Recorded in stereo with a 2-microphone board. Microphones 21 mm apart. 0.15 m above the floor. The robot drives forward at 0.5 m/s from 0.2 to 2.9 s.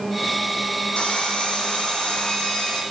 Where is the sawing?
75° left (ahead or behind), 2 m; by 2.8 s 55° left (ahead or behind), 2.5 m.